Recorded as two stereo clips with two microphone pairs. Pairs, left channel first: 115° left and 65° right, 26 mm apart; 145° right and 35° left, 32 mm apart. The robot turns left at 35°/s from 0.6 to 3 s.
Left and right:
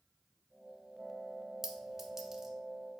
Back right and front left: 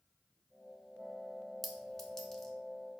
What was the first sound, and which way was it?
A clink, 65° right.